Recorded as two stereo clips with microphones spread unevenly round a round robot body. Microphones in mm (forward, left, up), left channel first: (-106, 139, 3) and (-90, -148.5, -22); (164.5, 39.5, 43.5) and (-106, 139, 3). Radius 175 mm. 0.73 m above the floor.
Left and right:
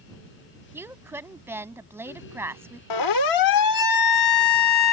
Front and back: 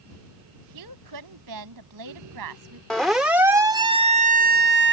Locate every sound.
0.7 s a woman speaking: 170° right
2.9 s a siren: 70° left; by 4.9 s 120° left